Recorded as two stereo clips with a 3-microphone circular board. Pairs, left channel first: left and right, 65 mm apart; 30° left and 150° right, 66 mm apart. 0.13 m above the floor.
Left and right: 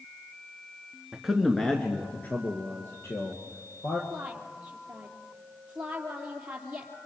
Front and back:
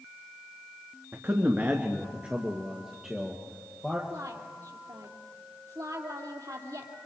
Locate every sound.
1.1 s a man speaking: 165° right, 1.5 m; by 4.0 s 125° left, 3 m
4.1 s a woman speaking: 160° right, 3.5 m